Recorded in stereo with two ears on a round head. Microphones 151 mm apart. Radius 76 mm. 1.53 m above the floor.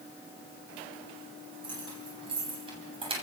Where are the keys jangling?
30° right (ahead or behind), 9.5 m; by 3.2 s 35° right (ahead or behind), 8 m.